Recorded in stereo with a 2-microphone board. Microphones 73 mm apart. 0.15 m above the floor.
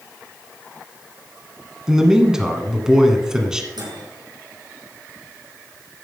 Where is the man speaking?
5° right (ahead or behind), 1.5 m.